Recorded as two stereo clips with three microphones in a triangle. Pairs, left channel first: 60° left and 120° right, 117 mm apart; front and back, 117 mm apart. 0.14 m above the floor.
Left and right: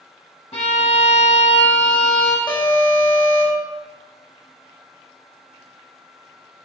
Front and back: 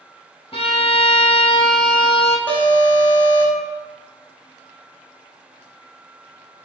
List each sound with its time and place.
0.5 s a violin: 35° left, 1.4 m
2.5 s an alarm: 65° left, 2 m